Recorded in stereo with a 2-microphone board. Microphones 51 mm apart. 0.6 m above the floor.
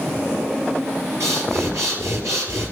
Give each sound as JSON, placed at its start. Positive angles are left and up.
{"t": 1.2, "sound": "breathing", "side_deg": -75, "distance_m": 3.5}